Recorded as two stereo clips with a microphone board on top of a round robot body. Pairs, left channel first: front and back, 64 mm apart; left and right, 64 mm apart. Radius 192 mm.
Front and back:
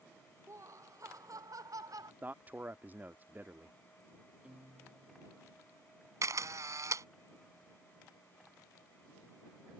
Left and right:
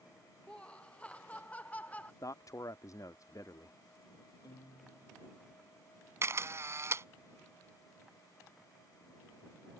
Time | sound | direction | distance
0.5 | laughter | 160° left | ?
2.2 | a man speaking | 120° left | ?
4.4 | a guitar | 105° left | ?
6.2 | a camera shutter | 140° right | ?